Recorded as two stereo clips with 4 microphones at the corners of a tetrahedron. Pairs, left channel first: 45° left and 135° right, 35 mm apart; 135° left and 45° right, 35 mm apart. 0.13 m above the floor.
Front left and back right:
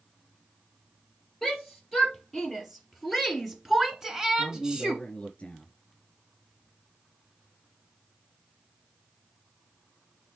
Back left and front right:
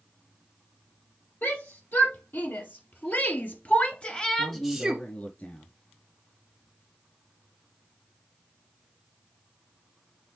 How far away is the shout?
About 4 m.